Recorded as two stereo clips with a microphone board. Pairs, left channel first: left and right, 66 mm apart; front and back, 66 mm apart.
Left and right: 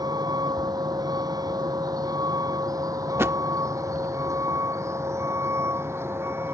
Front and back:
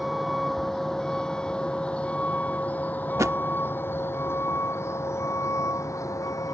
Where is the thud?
135° right.